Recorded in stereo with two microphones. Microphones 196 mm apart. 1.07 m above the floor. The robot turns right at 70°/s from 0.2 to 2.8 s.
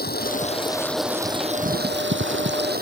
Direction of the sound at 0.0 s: 125° left.